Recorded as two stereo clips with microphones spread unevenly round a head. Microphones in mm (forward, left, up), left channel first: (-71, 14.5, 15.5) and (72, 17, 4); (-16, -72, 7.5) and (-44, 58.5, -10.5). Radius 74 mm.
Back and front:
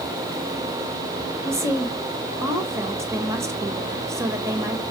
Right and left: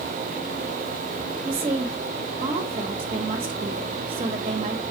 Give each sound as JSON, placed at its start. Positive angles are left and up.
{"t": 1.4, "sound": "a woman speaking", "azimuth_deg": 65, "distance_m": 1.4}